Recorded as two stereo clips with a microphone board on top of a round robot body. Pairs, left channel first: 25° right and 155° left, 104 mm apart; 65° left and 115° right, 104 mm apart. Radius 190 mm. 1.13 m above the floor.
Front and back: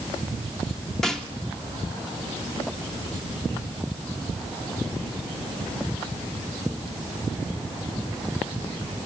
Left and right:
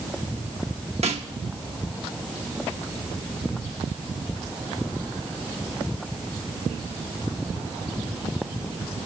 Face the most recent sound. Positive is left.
turn(degrees=-110)